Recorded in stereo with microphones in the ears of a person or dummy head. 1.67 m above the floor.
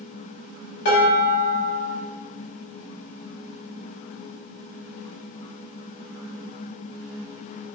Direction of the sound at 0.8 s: 55° left (ahead or behind).